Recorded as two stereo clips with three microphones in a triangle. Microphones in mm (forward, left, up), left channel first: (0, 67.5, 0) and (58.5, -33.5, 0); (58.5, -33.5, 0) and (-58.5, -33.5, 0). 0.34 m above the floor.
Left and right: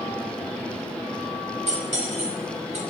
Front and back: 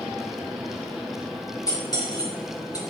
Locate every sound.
1.7 s cutlery clinking: 55° right, 2.5 m